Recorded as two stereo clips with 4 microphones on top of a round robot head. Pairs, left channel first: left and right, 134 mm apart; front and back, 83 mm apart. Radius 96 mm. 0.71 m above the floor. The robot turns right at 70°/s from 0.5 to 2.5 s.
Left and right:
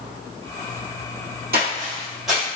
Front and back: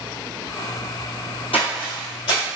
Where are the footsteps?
60° right, 1.1 m; by 2.4 s 5° left, 1.1 m.